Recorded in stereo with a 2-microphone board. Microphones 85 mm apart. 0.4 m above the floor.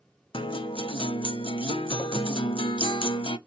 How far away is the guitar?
About 0.6 m.